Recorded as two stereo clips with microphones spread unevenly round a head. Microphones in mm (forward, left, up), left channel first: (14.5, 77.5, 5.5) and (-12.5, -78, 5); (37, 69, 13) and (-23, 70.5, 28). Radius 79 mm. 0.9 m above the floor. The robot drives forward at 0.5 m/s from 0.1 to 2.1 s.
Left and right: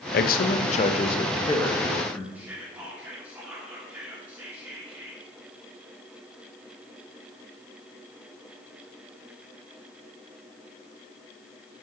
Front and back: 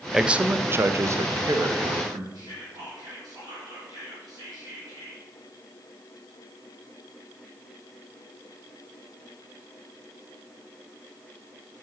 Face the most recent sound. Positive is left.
turn(degrees=180)